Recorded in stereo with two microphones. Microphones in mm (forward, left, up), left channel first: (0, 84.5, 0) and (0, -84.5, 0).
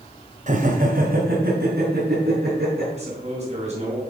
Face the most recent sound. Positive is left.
turn(degrees=-40)  # may be behind; listen again after turning